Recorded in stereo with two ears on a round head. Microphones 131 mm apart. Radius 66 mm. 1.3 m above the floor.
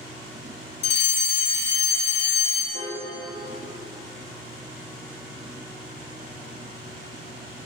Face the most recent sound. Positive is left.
turn(degrees=-35)  # may be behind; listen again after turning